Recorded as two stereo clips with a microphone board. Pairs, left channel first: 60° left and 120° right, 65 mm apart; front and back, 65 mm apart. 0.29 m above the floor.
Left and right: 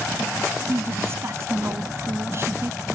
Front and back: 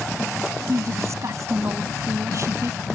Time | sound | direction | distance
0.7 | a woman speaking | 155° right | ?